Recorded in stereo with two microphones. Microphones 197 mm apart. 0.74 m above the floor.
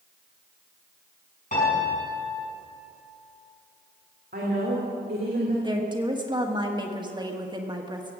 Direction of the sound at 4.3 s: 55° right (ahead or behind).